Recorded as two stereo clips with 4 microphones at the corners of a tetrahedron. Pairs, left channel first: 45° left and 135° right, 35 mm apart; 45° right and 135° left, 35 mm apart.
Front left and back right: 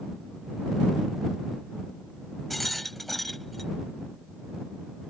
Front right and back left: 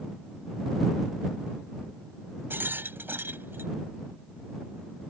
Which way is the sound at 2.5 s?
130° left.